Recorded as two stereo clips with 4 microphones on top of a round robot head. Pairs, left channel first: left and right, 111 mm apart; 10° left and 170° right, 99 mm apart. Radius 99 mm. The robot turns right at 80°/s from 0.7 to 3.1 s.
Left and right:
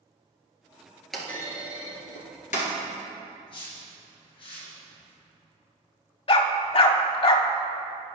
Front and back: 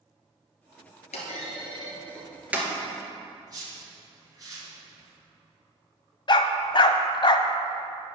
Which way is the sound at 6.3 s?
50° left.